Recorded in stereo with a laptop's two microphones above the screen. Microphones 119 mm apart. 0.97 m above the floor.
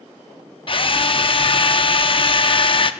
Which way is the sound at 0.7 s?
45° left (ahead or behind).